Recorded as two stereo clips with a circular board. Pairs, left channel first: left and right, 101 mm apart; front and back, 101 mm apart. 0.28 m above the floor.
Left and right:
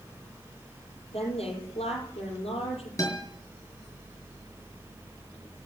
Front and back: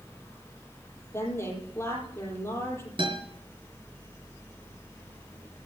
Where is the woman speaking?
65° left, 9.5 m.